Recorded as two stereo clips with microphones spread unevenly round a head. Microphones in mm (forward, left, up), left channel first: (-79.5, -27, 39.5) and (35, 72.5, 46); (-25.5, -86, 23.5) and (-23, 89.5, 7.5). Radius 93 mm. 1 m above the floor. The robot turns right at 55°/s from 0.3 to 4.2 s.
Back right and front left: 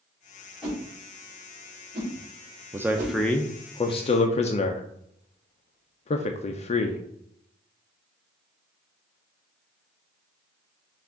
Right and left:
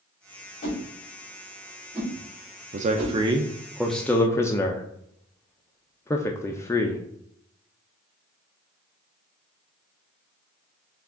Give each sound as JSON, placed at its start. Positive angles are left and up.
{"t": 0.6, "sound": "a whoosh", "azimuth_deg": -50, "distance_m": 2.5}
{"t": 2.7, "sound": "a man speaking", "azimuth_deg": 110, "distance_m": 0.5}